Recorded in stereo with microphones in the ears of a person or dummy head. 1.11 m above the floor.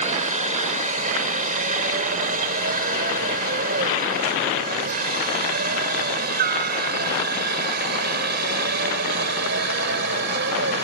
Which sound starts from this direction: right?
A helicopter, at 0.0 s.